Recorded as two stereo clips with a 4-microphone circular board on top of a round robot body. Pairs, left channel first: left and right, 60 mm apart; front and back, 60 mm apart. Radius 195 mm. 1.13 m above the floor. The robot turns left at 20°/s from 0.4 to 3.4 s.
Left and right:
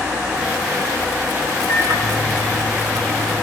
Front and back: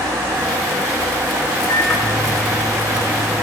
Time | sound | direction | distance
1.7 | a microwave | 85° right | 9.5 m